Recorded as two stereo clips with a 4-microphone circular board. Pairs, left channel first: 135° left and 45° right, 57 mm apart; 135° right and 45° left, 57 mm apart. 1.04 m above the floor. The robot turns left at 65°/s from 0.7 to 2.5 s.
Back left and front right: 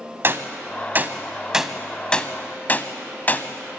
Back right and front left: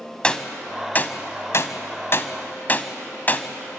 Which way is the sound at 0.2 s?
65° right.